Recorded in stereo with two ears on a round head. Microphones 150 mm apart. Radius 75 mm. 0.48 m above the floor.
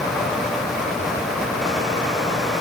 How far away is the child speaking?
No child speaking in this recording.